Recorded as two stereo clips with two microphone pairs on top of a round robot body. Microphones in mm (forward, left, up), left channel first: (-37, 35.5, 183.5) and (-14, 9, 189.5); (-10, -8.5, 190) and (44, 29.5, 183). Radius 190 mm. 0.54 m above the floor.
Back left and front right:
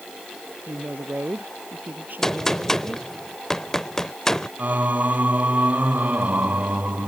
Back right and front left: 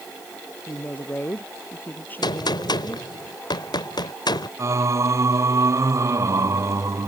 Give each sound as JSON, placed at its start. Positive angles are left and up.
{"t": 0.7, "sound": "a woman speaking", "azimuth_deg": -80}
{"t": 2.2, "sound": "a gunshot", "azimuth_deg": -155}
{"t": 4.6, "sound": "singing", "azimuth_deg": -5}